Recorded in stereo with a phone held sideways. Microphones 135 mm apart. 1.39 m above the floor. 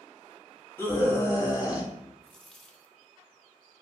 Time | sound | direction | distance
0.8 | a scream | 15° left (ahead or behind) | 2.5 m
2.2 | a dropped coin | 5° left (ahead or behind) | 0.7 m